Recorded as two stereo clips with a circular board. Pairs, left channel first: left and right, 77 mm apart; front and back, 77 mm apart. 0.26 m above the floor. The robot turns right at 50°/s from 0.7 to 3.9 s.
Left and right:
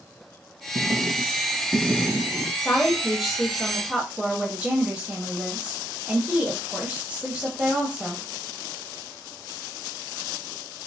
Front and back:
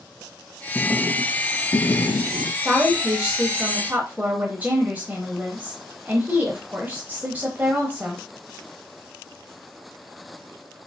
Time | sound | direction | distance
0.8 | writing | 75° right | 0.7 m
2.6 | a woman speaking | 150° left | 1.0 m